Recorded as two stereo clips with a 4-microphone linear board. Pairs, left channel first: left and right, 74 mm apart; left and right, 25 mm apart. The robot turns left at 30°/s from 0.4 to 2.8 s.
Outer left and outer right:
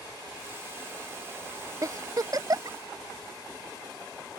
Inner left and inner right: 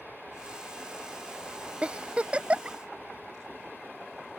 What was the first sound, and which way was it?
A giggle, 55° right (ahead or behind).